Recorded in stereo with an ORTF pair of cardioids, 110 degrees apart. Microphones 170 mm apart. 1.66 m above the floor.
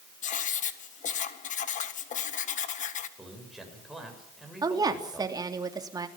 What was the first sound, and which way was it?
Writing, 50° left.